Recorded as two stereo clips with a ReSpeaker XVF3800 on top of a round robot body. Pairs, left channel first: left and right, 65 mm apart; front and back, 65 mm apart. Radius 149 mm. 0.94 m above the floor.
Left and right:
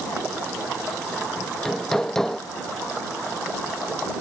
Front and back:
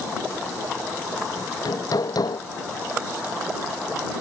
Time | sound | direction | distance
1.4 | hammering | 5° left | ?